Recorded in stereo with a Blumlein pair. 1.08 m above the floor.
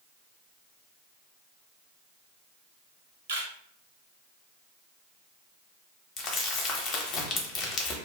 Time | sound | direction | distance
3.3 | a camera shutter | 65° right | 0.8 m
6.2 | crumpling | 30° left | 0.8 m